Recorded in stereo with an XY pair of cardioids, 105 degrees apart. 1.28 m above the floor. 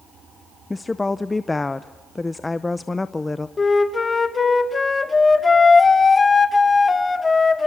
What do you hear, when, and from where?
0.7 s a woman speaking: 20° left, 0.6 m
3.6 s a flute: 30° left, 1.6 m